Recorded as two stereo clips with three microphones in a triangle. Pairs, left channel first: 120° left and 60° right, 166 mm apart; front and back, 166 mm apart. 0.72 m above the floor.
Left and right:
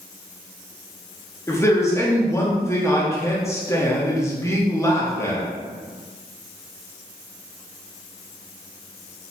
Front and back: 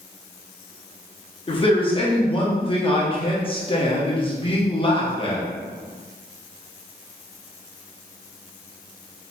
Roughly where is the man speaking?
Ahead left.